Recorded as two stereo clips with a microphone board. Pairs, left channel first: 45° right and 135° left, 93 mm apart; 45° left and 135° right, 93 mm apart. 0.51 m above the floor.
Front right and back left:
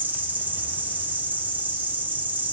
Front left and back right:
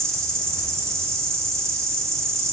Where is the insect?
165° right, 1.8 m.